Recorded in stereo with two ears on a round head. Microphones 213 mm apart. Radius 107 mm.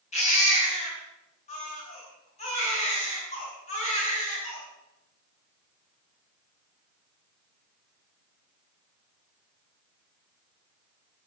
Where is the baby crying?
30° left (ahead or behind), 8.5 m.